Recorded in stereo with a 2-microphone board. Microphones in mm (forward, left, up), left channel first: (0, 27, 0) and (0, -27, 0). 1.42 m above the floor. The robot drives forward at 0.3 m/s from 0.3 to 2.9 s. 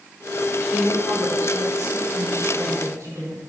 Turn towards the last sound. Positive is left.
turn(degrees=-85)